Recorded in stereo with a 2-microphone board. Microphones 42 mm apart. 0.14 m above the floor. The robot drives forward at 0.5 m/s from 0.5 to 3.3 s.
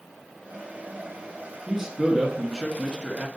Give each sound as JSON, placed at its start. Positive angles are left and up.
{"t": 1.7, "sound": "a man speaking", "side_deg": -5, "distance_m": 2.0}